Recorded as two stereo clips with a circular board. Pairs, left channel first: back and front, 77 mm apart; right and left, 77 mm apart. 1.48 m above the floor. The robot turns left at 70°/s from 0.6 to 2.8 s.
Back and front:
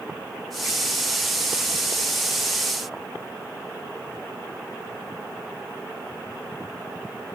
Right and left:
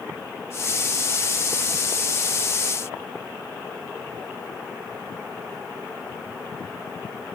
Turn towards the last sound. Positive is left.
No sound to turn to.